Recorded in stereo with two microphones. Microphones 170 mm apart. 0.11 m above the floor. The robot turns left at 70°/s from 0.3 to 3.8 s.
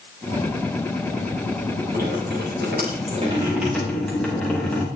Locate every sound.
1.9 s dripping: 55° right, 8 m; by 4.8 s 175° left, 8 m